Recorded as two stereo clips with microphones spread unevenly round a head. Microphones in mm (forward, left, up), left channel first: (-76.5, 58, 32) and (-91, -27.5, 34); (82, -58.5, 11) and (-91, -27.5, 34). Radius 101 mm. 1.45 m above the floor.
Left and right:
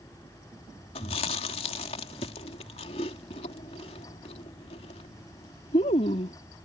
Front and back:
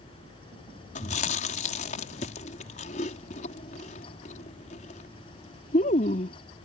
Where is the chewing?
50° left.